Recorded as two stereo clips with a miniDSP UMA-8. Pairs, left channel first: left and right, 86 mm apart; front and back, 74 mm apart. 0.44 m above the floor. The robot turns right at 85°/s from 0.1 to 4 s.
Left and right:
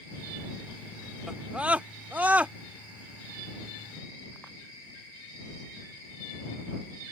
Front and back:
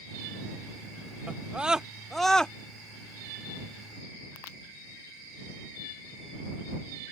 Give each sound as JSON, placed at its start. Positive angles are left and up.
{"t": 1.3, "sound": "a scream", "azimuth_deg": -160}